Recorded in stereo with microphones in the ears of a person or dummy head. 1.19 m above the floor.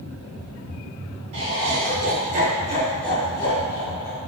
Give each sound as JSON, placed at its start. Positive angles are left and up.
{"t": 1.3, "sound": "laughter", "side_deg": -65, "distance_m": 1.3}